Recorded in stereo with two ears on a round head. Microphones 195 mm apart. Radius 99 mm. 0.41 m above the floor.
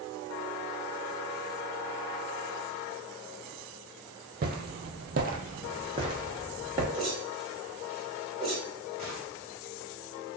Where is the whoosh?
25° right (ahead or behind), 1.8 m.